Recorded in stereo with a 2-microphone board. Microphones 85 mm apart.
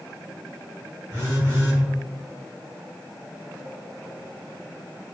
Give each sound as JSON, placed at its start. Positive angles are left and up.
{"t": 1.1, "sound": "a phone buzzing", "side_deg": -35, "distance_m": 1.1}